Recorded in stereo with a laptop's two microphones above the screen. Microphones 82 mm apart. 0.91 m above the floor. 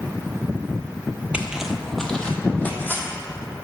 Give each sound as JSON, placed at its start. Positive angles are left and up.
{"t": 1.3, "sound": "footsteps", "side_deg": -15, "distance_m": 1.1}